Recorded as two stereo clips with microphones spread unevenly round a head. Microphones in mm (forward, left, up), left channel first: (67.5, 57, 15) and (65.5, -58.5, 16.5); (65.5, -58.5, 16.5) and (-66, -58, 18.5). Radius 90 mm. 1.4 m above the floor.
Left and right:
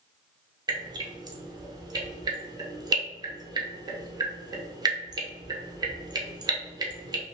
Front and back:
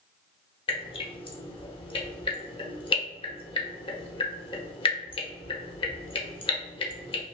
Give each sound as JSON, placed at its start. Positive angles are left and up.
{"t": 0.7, "sound": "dripping", "azimuth_deg": -45, "distance_m": 0.7}